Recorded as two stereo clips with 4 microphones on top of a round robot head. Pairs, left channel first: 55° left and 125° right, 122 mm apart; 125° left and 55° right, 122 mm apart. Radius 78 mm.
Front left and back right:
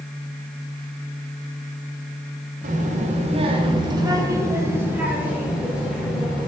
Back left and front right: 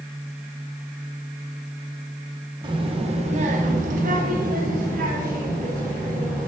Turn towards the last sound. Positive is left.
turn(degrees=-35)